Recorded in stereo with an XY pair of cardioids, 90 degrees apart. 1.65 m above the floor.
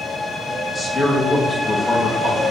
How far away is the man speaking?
About 3 m.